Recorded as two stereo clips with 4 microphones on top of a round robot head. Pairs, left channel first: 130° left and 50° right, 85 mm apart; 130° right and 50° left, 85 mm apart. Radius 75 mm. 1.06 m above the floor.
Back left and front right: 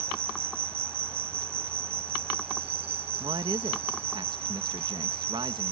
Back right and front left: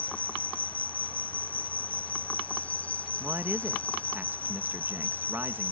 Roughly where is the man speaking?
Ahead.